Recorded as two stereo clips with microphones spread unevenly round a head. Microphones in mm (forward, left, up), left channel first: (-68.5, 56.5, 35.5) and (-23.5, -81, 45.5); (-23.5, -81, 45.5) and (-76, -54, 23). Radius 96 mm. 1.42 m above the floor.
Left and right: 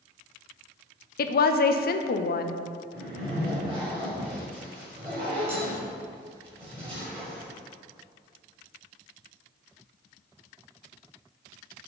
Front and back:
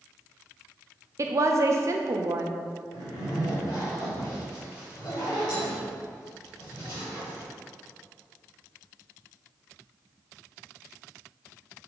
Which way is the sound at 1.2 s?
120° left.